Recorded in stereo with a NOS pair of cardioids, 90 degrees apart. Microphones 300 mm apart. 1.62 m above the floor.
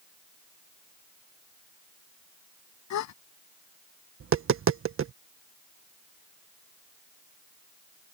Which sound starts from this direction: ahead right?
Tapping, at 4.2 s.